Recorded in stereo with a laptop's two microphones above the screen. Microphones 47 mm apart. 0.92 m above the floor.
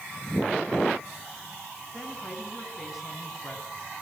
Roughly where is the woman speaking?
Centre.